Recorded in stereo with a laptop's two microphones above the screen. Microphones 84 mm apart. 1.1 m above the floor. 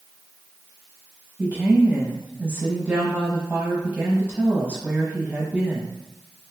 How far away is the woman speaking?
About 1.1 m.